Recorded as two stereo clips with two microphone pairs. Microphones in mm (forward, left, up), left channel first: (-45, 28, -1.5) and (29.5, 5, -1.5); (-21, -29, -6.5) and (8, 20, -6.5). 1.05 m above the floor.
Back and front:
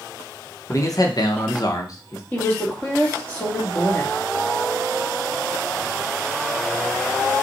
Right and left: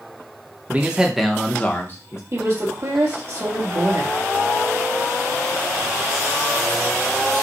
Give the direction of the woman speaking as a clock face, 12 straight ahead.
9 o'clock.